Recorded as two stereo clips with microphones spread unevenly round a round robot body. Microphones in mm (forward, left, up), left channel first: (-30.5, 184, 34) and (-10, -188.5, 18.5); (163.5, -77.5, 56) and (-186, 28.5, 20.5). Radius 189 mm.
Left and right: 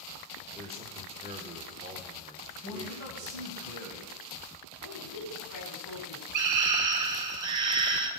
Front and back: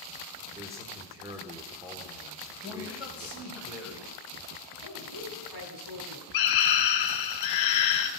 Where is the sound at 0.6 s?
135° right, 1.5 m.